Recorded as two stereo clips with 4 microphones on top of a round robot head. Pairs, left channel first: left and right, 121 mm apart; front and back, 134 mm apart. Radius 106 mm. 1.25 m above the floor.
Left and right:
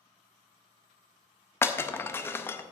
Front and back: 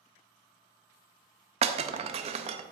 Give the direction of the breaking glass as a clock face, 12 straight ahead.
7 o'clock.